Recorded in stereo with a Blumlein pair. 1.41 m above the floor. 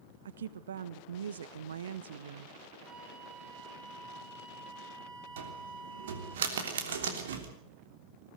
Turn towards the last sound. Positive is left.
turn(degrees=-60)